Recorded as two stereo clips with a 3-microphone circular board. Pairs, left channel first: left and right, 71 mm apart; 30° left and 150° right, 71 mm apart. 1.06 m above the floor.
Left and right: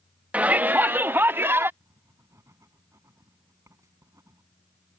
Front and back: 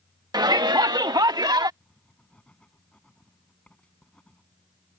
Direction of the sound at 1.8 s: 45° right.